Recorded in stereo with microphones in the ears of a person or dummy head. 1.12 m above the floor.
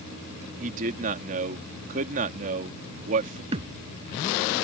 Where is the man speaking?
50° right (ahead or behind).